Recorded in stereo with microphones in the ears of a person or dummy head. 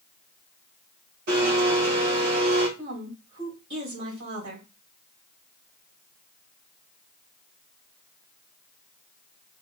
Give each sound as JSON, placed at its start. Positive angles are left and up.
{"t": 1.3, "sound": "a blender", "side_deg": -65, "distance_m": 1.8}
{"t": 2.8, "sound": "a woman speaking", "side_deg": -70, "distance_m": 2.5}